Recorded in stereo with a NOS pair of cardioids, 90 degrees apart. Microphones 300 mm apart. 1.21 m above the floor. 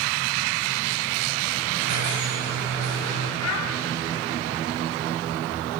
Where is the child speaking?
65° left, 2.5 m.